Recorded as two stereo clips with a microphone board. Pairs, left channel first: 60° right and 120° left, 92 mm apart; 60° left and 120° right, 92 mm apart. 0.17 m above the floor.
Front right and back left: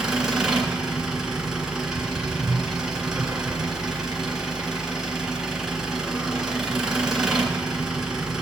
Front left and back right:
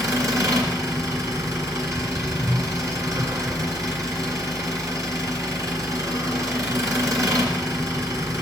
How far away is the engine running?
About 1.9 m.